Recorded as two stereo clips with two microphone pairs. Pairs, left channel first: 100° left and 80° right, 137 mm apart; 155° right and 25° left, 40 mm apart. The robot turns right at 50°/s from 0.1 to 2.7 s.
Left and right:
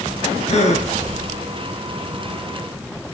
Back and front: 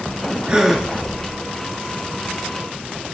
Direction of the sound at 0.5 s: 85° left.